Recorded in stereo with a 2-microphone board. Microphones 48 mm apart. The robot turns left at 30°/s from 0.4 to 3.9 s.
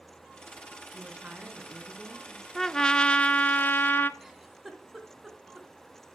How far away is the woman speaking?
About 2.5 m.